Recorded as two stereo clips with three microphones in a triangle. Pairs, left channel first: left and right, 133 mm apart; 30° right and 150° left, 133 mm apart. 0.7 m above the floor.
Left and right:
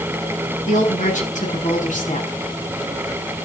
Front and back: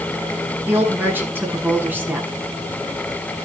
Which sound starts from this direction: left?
A woman speaking, at 0.7 s.